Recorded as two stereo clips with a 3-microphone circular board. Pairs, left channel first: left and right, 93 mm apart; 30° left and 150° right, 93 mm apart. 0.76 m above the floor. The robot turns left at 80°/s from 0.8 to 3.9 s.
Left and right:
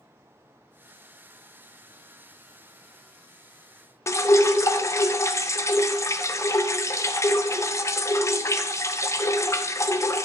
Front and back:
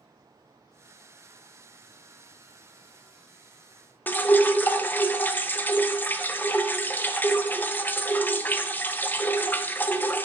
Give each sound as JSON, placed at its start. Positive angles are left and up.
{"t": 4.1, "sound": "dripping", "azimuth_deg": 80, "distance_m": 0.7}